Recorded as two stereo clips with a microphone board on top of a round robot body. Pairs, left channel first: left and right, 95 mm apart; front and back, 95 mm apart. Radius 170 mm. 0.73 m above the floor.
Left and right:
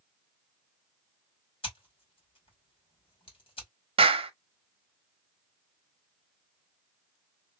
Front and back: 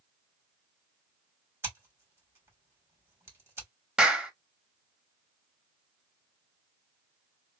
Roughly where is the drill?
I don't hear a drill.